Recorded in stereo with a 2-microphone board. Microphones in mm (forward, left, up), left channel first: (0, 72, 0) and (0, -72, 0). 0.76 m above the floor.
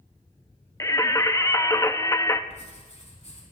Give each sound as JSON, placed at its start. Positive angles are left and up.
{"t": 0.8, "sound": "singing", "side_deg": 25, "distance_m": 0.5}
{"t": 2.5, "sound": "writing", "side_deg": 50, "distance_m": 4.0}